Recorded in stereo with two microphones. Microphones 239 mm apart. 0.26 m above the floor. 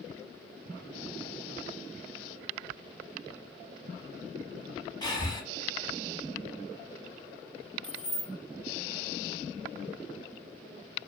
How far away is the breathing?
About 0.9 m.